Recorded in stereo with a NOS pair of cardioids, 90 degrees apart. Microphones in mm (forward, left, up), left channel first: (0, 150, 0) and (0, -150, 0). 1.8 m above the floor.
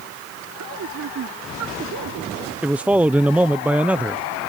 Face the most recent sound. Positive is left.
turn(degrees=-5)